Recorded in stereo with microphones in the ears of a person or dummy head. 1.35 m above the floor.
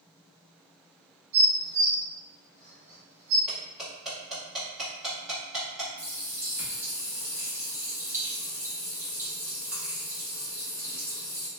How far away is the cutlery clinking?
About 1.5 m.